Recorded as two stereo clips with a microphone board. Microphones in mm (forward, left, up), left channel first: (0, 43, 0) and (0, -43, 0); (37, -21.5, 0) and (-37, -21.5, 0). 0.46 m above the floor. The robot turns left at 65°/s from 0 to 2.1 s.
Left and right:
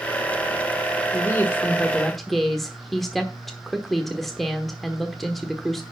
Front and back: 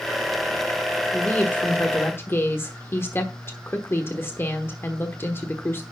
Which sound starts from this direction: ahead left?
A woman speaking, at 1.1 s.